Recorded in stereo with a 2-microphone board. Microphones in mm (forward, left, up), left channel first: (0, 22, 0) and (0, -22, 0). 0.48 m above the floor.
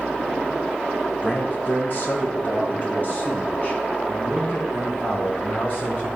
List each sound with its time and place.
1.2 s a man speaking: 40° left (ahead or behind), 2 m